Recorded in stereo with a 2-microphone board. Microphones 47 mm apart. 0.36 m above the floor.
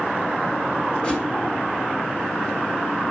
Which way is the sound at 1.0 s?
25° left (ahead or behind).